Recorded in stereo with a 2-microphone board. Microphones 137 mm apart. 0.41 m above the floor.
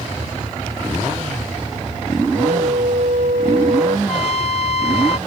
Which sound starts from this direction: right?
A flute, at 2.3 s.